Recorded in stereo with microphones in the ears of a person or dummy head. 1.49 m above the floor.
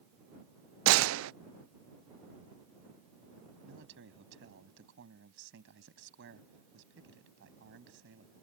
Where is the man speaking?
65° right (ahead or behind).